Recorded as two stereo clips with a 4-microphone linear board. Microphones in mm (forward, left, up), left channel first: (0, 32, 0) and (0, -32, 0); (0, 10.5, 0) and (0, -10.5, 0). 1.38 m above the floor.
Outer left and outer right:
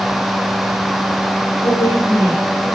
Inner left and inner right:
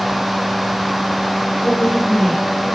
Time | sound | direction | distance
1.6 | a woman speaking | 70° left (ahead or behind) | 6.5 m